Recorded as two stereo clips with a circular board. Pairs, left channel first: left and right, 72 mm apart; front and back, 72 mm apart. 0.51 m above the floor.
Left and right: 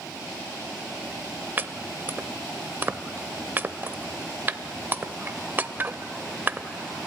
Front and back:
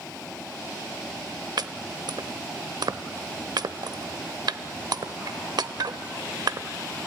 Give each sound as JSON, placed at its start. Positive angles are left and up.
{"t": 1.6, "sound": "chopping", "azimuth_deg": -155, "distance_m": 0.6}